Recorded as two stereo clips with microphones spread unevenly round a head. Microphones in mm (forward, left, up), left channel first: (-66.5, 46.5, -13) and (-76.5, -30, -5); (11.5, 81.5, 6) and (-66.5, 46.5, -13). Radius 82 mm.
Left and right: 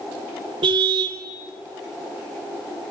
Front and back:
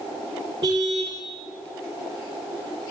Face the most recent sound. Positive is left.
turn(degrees=-85)